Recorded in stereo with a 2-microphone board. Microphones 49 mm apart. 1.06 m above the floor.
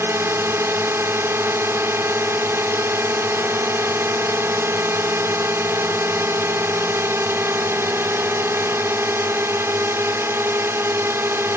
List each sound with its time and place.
0.0 s a drone: 55° right (ahead or behind)